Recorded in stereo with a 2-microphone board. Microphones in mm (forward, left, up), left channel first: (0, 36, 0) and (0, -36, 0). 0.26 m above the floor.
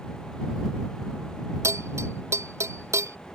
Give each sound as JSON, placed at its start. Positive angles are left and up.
{"t": 1.6, "sound": "a bell", "side_deg": -40}